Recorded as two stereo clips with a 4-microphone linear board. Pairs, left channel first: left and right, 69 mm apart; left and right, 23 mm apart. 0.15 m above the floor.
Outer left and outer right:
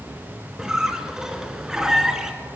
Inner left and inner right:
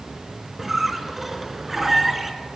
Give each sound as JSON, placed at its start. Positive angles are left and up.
{"t": 0.6, "sound": "a squeak", "side_deg": -10, "distance_m": 0.9}